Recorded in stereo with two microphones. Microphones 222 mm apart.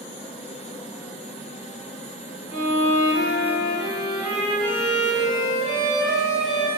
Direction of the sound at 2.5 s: 70° right (ahead or behind).